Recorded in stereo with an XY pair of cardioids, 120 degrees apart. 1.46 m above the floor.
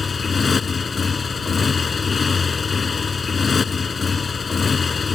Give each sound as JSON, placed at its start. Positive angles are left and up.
{"t": 0.0, "sound": "a motorcycle", "azimuth_deg": 30}